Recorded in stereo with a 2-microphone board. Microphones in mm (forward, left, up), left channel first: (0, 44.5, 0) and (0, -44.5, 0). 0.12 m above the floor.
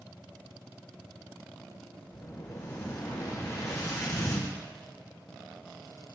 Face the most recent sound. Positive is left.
turn(degrees=40)  # may be behind; listen again after turning